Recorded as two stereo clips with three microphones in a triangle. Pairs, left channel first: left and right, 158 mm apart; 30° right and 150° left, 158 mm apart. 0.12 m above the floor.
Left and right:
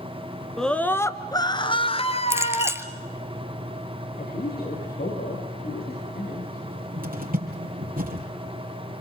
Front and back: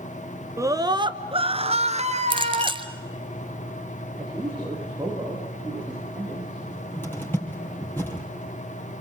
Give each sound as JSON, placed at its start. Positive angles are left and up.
{"t": 0.6, "sound": "a scream", "azimuth_deg": 175, "distance_m": 1.1}
{"t": 2.3, "sound": "a clink", "azimuth_deg": -160, "distance_m": 1.2}
{"t": 4.2, "sound": "a man speaking", "azimuth_deg": 75, "distance_m": 8.5}
{"t": 6.6, "sound": "a cupboard door", "azimuth_deg": -105, "distance_m": 4.0}